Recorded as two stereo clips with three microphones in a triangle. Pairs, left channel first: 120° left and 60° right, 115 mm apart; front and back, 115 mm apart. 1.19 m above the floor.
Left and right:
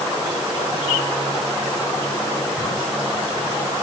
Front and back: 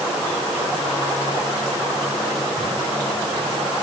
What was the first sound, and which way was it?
Only background noise.